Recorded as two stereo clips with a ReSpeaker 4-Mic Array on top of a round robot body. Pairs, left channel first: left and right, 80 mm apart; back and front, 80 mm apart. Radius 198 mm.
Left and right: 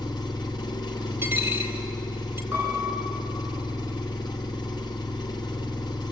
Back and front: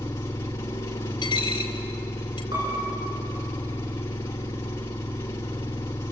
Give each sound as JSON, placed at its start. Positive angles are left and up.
{"t": 0.0, "sound": "an engine running", "azimuth_deg": 130, "distance_m": 0.7}
{"t": 1.2, "sound": "a dropped coin", "azimuth_deg": -150, "distance_m": 0.8}
{"t": 2.5, "sound": "a piano", "azimuth_deg": -20, "distance_m": 9.5}